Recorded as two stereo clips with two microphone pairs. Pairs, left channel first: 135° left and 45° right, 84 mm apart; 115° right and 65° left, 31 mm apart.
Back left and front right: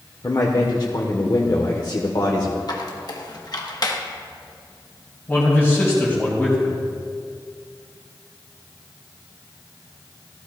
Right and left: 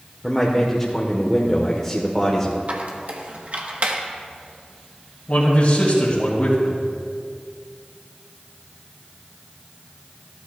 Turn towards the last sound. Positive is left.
turn(degrees=-155)